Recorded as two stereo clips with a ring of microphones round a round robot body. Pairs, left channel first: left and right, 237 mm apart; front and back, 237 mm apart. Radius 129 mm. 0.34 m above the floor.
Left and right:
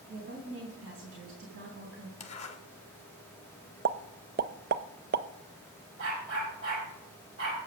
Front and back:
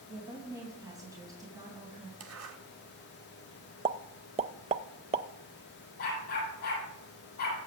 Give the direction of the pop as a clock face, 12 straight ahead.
4 o'clock.